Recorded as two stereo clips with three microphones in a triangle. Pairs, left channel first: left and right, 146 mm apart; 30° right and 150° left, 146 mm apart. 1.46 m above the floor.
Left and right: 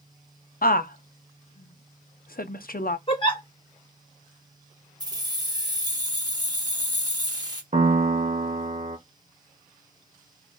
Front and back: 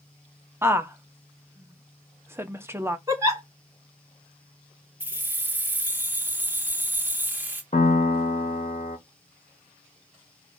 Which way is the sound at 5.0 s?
140° right.